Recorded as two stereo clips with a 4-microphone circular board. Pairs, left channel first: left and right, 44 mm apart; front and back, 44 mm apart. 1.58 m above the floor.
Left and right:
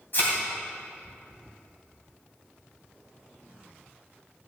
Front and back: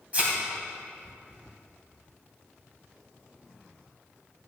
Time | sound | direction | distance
0.1 | a thud | 125° left | 3 m